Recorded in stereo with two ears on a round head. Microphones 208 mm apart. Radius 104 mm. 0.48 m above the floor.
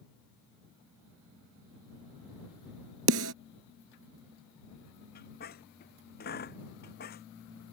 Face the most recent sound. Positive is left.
turn(degrees=45)  # may be behind; listen again after turning